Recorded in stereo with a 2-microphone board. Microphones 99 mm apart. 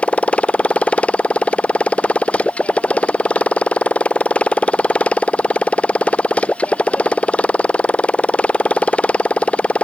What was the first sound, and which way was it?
A motorcycle, 15° left (ahead or behind).